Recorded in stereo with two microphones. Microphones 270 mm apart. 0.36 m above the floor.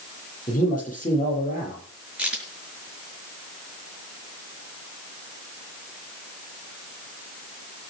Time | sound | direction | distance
0.5 | a man speaking | 30° left (ahead or behind) | 8.5 m
2.2 | a crack | 5° right (ahead or behind) | 5.5 m